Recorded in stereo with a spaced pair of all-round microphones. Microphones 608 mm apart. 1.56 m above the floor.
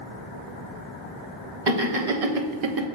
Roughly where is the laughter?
Right.